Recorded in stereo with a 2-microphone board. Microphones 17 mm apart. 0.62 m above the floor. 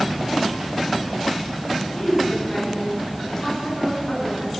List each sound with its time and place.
1.9 s a woman speaking: 35° left (ahead or behind), 7 m